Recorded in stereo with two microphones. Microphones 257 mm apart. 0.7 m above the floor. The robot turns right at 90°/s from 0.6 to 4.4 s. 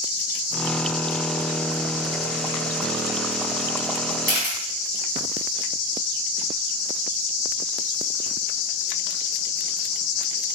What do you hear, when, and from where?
4.3 s a camera shutter: 50° right (ahead or behind), 4 m; by 4.6 s 40° right (ahead or behind), 4 m